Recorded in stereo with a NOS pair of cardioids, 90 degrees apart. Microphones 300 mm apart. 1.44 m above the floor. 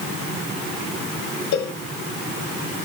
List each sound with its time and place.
1.5 s a cowbell: 65° left, 3 m